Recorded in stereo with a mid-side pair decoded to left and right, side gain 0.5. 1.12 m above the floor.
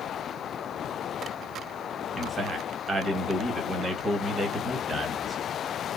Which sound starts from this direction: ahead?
A man speaking, at 2.2 s.